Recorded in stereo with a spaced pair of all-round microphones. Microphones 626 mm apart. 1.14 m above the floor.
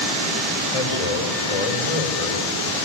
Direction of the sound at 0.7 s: 60° left (ahead or behind).